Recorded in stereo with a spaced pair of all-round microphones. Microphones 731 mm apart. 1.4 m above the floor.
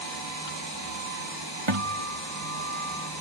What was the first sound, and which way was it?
A guitar, 35° right (ahead or behind).